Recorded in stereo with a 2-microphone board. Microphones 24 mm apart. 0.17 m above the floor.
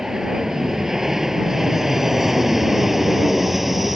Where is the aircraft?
25° right (ahead or behind); by 4.0 s 10° right (ahead or behind).